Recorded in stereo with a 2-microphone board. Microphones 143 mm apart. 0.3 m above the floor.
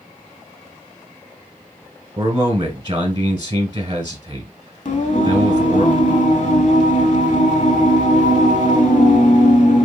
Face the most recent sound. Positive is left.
turn(degrees=60)  # may be behind; listen again after turning